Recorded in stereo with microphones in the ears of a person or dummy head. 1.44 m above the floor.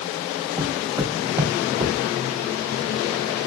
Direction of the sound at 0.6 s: 10° right (ahead or behind).